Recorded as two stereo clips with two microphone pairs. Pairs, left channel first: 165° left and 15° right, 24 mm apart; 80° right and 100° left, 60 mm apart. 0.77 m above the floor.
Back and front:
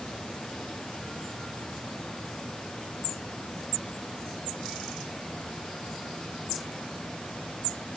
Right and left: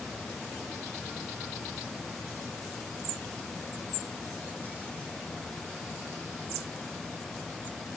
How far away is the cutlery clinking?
No cutlery clinking in this recording.